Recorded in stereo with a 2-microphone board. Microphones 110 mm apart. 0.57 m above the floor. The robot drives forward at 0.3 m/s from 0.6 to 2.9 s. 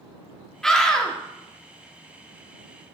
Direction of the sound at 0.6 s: 5° left (ahead or behind).